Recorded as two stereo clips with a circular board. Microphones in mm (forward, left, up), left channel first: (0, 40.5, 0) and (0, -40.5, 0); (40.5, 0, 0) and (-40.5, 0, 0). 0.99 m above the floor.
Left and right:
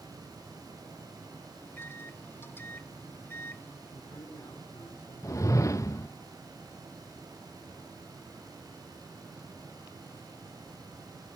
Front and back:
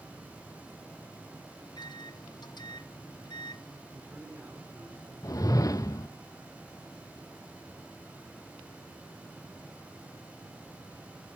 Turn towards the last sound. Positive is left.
turn(degrees=40)